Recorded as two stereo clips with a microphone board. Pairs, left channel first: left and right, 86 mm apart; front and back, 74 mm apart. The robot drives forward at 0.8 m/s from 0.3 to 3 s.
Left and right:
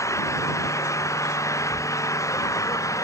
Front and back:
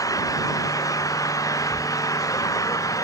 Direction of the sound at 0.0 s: 40° left.